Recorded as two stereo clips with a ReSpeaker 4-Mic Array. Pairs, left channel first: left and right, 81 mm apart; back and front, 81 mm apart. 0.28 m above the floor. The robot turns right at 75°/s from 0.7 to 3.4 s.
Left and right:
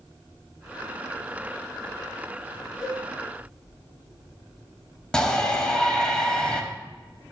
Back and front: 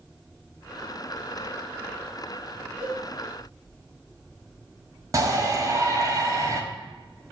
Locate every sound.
2.8 s a cowbell: straight ahead, 3.5 m; by 3.0 s 10° left, 3.5 m
5.1 s a shout: 15° left, 1.2 m